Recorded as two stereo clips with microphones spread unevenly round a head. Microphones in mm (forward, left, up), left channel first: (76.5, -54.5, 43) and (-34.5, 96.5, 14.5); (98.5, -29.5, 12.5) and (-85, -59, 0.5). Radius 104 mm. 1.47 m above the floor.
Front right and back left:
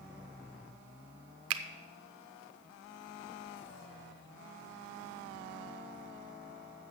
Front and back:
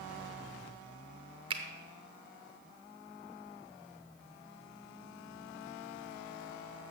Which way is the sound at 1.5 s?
120° left.